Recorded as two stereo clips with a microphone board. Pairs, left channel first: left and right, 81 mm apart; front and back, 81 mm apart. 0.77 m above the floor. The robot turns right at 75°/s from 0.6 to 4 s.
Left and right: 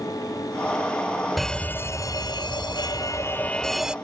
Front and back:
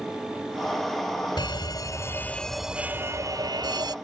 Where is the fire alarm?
Straight ahead; by 4.0 s 165° right.